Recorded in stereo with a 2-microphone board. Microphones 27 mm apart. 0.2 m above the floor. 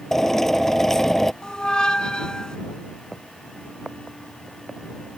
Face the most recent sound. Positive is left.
turn(degrees=30)  # may be behind; listen again after turning